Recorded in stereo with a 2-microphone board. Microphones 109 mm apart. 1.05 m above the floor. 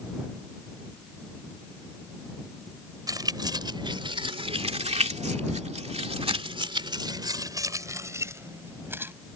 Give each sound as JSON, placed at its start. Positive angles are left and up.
{"t": 3.1, "sound": "keys jangling", "side_deg": -35}